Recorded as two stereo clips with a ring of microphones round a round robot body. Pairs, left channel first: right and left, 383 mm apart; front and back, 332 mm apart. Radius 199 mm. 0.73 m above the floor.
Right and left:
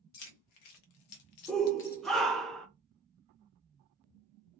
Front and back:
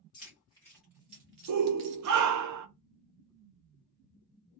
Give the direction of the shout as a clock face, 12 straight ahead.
6 o'clock.